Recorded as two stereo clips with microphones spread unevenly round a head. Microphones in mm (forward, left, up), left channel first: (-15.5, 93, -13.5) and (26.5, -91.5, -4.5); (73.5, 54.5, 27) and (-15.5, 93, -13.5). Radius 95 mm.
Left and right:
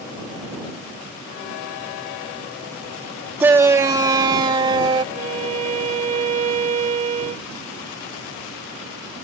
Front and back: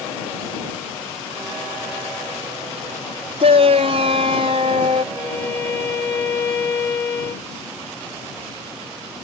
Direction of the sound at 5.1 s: 40° right.